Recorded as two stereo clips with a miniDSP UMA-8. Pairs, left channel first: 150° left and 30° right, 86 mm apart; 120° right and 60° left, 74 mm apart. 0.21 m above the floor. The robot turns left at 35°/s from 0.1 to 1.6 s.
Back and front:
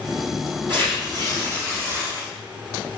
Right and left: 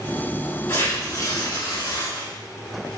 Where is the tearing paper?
55° right, 3.5 m; by 2.3 s 85° right, 3.5 m.